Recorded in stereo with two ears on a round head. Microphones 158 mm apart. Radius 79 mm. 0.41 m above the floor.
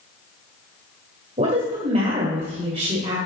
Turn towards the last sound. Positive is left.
turn(degrees=-40)  # may be behind; listen again after turning